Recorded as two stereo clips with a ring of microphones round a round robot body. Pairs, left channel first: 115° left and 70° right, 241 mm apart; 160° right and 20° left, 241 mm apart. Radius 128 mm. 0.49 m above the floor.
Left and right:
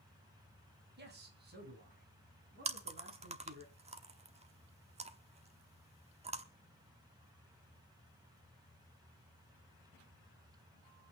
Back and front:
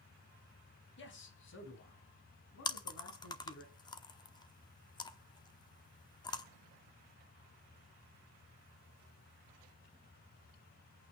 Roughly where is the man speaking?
Behind right.